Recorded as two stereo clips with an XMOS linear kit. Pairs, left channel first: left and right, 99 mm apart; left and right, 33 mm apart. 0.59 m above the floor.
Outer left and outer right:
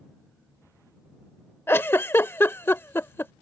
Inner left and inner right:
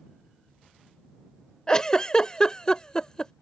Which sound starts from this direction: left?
A giggle, at 1.7 s.